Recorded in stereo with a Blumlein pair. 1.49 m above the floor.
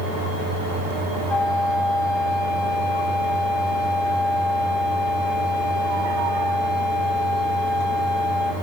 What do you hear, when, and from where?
1.3 s a flute: 20° left, 2.0 m